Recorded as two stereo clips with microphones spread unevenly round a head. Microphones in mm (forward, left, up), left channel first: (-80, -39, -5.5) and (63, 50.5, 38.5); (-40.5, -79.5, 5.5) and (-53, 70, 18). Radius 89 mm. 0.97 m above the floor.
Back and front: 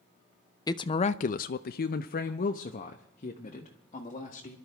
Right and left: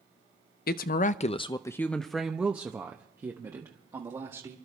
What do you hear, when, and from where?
0.7 s a woman speaking: 85° right, 0.6 m; by 4.6 s 160° left, 1.8 m